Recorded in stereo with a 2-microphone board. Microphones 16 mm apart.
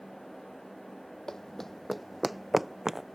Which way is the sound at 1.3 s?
40° left (ahead or behind).